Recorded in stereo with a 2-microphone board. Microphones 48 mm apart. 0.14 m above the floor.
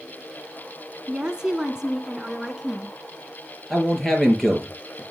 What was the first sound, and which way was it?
A woman speaking, 15° right (ahead or behind).